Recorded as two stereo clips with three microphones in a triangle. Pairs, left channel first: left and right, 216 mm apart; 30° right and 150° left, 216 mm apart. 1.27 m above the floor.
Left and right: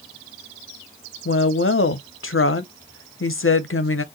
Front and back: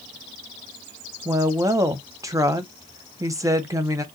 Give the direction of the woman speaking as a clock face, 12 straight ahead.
9 o'clock.